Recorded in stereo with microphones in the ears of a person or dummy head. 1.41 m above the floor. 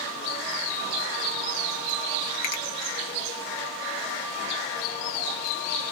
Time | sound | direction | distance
2.4 | a finger snap | 45° left (ahead or behind) | 0.7 m